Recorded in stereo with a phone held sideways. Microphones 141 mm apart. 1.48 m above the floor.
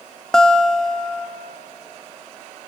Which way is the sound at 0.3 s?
5° left (ahead or behind).